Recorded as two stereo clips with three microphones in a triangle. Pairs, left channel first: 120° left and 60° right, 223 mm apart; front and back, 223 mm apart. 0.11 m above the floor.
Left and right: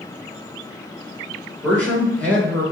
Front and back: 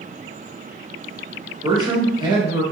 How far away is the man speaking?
About 1.1 m.